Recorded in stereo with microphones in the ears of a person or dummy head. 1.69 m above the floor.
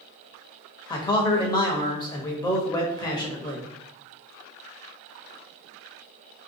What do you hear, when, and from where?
0.9 s a man speaking: 20° left (ahead or behind), 0.7 m